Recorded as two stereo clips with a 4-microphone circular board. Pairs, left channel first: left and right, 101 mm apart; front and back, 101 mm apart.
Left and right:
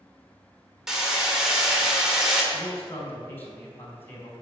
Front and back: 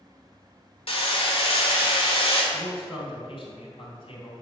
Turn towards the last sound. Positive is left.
turn(degrees=20)